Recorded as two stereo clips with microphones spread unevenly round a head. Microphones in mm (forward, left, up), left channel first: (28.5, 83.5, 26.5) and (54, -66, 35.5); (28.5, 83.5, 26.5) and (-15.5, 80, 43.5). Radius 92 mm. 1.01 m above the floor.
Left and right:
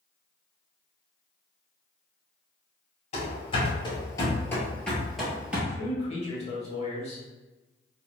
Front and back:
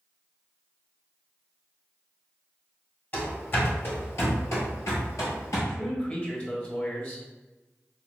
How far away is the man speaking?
About 1.6 m.